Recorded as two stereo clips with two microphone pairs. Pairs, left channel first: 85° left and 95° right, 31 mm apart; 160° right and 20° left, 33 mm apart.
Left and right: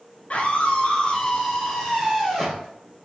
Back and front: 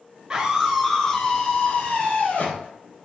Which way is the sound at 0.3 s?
70° left.